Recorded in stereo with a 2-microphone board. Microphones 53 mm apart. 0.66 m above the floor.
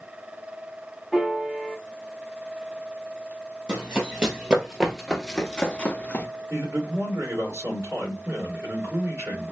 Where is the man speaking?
60° right (ahead or behind), 2 m.